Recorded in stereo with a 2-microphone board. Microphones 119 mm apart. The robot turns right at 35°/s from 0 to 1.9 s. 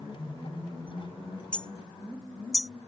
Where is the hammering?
10° left (ahead or behind); by 2.7 s centre (ahead or behind).